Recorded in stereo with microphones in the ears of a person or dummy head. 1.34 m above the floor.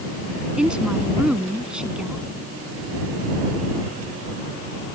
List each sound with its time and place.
0.6 s a woman speaking: centre (ahead or behind)